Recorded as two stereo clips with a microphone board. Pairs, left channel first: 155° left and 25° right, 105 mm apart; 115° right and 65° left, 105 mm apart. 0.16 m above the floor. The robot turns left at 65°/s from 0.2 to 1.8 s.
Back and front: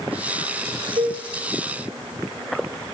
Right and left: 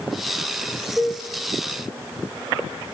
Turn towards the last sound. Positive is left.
turn(degrees=-80)